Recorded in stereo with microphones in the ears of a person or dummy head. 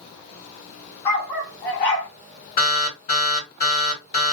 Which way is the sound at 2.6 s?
50° left (ahead or behind).